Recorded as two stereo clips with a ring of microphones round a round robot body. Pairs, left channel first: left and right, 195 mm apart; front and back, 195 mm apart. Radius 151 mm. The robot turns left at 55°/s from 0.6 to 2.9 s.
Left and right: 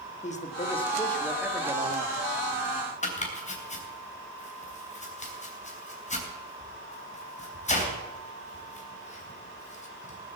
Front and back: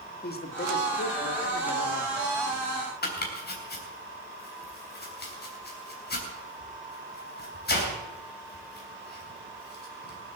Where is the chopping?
35° left, 3 m.